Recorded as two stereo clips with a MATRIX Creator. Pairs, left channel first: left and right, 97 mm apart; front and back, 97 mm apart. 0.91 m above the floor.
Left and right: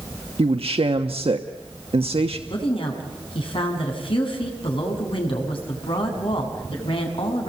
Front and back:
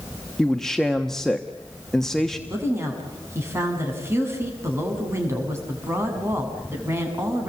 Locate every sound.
0.4 s a man speaking: 85° right, 1.1 m
2.5 s a woman speaking: 115° left, 6.5 m